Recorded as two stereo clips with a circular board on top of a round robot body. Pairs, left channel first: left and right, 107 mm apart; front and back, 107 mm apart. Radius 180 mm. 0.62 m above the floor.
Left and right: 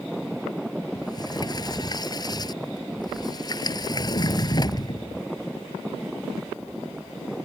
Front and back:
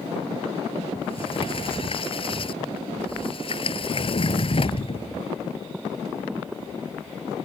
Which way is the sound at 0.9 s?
35° left.